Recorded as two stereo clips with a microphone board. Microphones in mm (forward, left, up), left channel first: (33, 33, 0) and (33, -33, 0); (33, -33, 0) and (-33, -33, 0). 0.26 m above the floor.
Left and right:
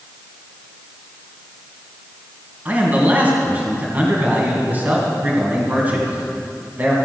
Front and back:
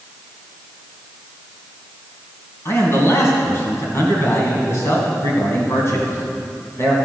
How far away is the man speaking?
About 2.5 m.